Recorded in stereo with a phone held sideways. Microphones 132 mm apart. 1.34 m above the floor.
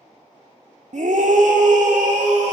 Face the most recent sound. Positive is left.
turn(degrees=-65)  # may be behind; listen again after turning